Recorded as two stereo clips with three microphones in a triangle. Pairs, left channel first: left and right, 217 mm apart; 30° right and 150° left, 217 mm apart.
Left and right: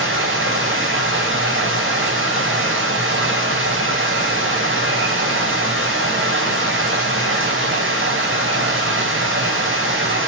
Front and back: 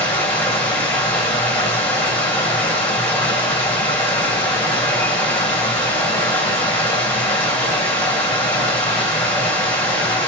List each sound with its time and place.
0.0 s running water: 115° right, 5 m